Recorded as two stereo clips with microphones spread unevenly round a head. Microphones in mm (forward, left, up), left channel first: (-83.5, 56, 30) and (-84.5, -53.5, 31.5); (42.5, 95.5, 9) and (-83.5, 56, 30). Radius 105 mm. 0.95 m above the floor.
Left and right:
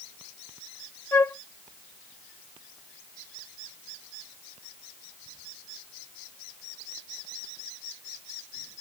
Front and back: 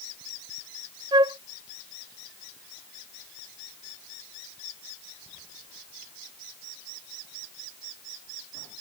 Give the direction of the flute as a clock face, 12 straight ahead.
7 o'clock.